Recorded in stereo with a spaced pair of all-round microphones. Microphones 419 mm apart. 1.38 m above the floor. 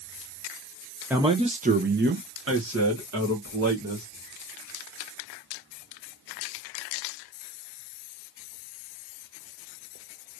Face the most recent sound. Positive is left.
turn(degrees=-40)  # may be behind; listen again after turning